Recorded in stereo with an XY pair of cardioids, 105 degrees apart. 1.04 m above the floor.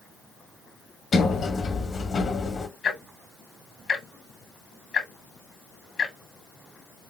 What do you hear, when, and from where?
1.1 s a sliding door: 45° left, 1.0 m
2.8 s ticking: 50° left, 1.2 m